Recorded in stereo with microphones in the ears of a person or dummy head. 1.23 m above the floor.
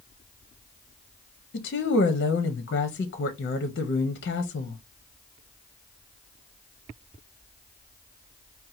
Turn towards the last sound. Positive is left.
turn(degrees=40)  # may be behind; listen again after turning